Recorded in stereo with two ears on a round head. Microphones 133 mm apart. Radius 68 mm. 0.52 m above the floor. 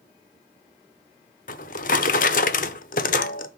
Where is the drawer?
65° left (ahead or behind), 0.7 m.